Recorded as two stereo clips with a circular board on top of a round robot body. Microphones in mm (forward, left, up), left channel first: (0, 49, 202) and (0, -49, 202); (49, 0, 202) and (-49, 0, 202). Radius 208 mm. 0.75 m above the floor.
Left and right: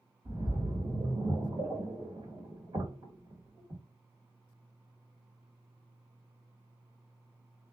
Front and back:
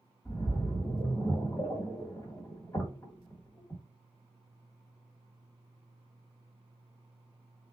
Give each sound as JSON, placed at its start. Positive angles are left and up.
{"t": 0.2, "sound": "a splash", "azimuth_deg": -60, "distance_m": 1.7}